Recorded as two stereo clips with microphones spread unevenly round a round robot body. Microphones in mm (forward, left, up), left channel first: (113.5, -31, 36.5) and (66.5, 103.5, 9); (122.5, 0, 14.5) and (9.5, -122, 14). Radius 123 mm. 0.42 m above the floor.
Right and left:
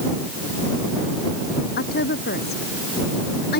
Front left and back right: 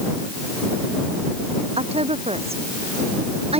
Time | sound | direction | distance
1.8 | a woman speaking | 80° right | ?